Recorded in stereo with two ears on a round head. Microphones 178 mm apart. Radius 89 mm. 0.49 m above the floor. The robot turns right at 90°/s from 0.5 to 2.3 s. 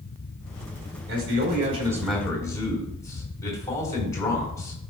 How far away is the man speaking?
About 3.5 m.